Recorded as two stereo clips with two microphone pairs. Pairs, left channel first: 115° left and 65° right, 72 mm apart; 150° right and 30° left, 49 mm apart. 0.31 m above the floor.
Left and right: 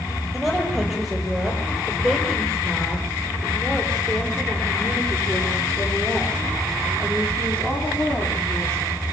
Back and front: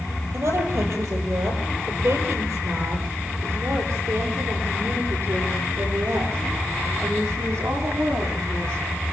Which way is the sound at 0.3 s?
25° left.